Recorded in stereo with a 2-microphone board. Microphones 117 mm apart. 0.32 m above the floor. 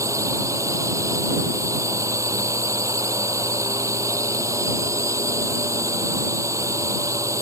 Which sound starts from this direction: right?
A drone, at 0.0 s.